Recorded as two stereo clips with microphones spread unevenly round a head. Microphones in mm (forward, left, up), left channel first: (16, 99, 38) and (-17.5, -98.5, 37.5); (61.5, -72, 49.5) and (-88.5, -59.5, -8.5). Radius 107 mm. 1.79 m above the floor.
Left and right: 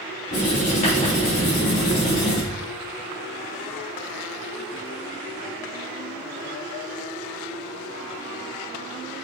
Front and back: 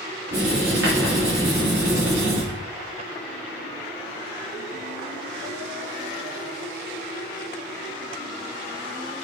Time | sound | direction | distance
0.3 | writing | 135° left | 3 m